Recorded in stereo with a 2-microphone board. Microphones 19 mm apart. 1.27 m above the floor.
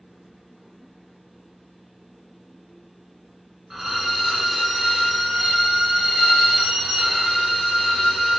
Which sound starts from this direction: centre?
A violin, at 3.7 s.